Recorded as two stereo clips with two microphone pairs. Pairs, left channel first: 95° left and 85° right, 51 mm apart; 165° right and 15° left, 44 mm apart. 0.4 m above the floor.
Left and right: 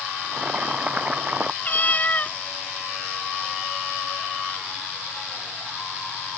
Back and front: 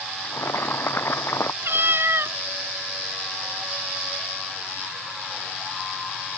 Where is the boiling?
145° right.